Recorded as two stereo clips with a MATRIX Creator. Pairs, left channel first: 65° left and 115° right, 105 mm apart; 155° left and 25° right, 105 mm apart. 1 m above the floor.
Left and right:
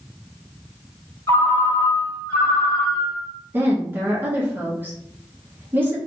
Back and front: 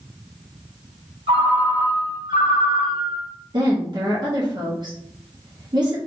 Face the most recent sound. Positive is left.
turn(degrees=-45)